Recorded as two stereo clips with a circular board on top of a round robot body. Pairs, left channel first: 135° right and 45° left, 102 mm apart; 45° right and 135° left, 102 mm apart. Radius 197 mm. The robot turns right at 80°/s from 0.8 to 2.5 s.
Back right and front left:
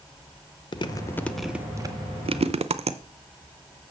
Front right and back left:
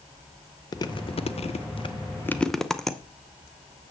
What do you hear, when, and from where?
0.7 s chewing: 95° right, 0.8 m; by 3.0 s 40° left, 0.8 m